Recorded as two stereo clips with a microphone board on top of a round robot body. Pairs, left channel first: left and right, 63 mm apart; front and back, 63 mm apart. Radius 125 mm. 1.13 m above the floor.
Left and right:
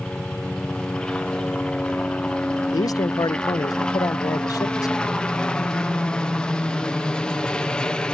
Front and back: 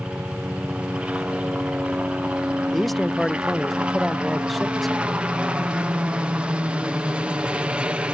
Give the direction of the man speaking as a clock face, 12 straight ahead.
9 o'clock.